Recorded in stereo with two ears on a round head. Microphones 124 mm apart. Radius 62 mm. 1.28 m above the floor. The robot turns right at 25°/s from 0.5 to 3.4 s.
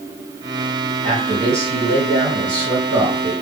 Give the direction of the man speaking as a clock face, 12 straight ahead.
2 o'clock.